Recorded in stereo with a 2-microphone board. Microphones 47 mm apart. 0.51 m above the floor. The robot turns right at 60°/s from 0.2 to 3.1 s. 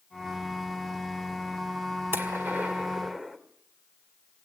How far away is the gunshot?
About 2 m.